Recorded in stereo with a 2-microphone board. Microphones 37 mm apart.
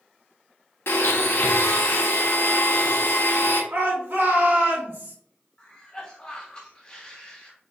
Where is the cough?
25° left (ahead or behind), 1.2 m.